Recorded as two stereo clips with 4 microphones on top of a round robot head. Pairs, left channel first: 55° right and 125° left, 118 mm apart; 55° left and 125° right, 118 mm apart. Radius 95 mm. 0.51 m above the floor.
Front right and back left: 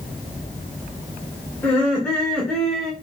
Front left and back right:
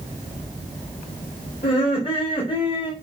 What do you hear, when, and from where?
1.6 s laughter: 20° left, 2.5 m; by 2.9 s 35° left, 1.6 m